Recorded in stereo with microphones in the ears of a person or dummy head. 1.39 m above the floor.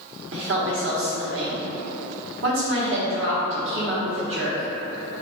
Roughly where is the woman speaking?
Right.